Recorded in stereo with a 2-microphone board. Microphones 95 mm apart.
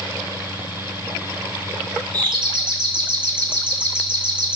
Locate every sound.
2.1 s a doorbell: 55° right (ahead or behind), 2.5 m